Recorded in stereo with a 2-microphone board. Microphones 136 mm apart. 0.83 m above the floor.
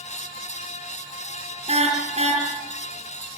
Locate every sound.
1.7 s a car horn: 50° right (ahead or behind), 6.5 m